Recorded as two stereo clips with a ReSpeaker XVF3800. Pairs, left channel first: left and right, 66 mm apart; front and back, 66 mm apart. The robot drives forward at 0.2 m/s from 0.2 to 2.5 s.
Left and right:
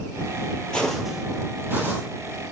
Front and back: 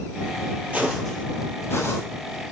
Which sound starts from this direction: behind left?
Footsteps, at 0.7 s.